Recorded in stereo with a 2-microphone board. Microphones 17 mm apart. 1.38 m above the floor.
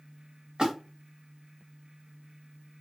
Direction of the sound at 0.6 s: 65° right (ahead or behind).